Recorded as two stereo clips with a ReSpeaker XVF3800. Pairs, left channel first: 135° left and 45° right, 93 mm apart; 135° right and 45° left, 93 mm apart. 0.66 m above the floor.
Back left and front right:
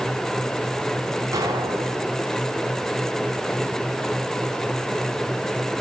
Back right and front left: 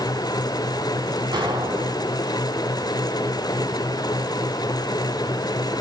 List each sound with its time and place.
1.3 s an explosion: 5° left, 5.5 m